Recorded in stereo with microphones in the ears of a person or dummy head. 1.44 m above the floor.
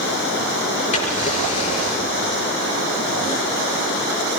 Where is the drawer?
40° left (ahead or behind), 8 m.